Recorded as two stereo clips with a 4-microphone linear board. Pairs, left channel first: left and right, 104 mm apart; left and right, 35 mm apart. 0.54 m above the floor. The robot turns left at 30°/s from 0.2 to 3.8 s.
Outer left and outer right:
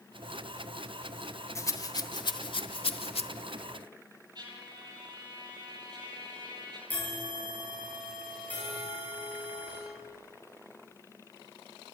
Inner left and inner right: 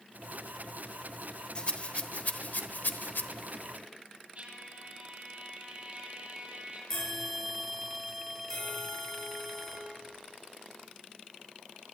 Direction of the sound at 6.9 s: 15° left (ahead or behind).